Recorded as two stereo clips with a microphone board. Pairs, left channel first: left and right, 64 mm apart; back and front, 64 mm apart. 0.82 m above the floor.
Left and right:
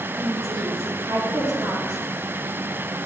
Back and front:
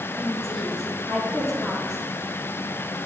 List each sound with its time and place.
0.2 s a woman speaking: 95° right, 1.7 m